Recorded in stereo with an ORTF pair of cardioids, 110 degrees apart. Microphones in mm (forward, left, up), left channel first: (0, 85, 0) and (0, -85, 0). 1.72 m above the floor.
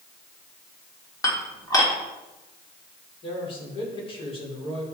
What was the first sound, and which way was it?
Dishes clattering, 20° left.